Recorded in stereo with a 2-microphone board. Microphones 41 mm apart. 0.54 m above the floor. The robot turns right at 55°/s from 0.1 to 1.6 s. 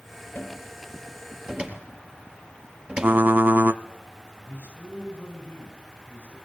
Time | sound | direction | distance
0.3 | a cupboard door | 40° left (ahead or behind) | 4 m
3.0 | typing on a keyboard | 55° right (ahead or behind) | 0.9 m
4.5 | a man speaking | 55° left (ahead or behind) | 5 m